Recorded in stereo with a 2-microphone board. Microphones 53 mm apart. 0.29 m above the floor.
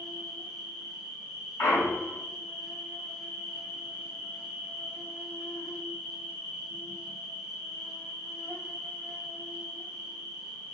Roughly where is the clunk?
Left.